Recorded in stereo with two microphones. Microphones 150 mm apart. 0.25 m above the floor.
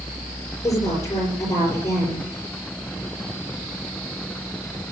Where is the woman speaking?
20° left (ahead or behind), 5.5 m.